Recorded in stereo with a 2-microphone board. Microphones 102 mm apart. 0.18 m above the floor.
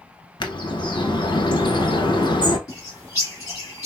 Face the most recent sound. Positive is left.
turn(degrees=30)  # may be behind; listen again after turning